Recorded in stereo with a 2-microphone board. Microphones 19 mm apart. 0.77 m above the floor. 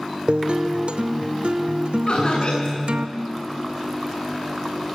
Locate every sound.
0.3 s a guitar: 65° right (ahead or behind), 0.7 m
2.1 s laughter: 50° left (ahead or behind), 8 m